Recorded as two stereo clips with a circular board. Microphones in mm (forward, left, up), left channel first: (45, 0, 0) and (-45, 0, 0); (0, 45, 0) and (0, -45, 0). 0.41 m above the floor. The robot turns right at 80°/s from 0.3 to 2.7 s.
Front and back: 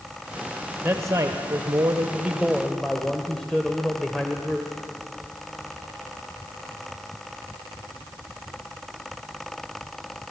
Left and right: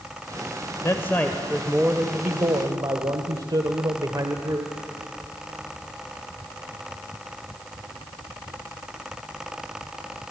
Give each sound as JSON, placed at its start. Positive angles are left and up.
{"t": 0.8, "sound": "a man speaking", "azimuth_deg": 125, "distance_m": 1.5}